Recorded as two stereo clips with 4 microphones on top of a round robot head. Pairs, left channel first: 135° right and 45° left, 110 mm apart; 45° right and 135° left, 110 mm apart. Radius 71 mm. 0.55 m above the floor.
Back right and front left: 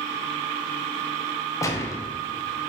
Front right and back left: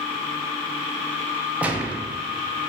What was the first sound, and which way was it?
A gunshot, 160° right.